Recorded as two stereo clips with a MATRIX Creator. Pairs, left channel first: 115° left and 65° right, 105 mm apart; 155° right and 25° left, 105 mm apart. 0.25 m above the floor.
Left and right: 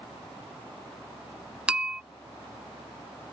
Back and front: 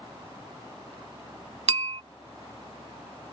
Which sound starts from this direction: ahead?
A bell, at 1.7 s.